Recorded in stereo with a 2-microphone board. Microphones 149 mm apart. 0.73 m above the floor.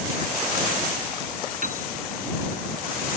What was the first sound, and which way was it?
A piano, 55° right (ahead or behind).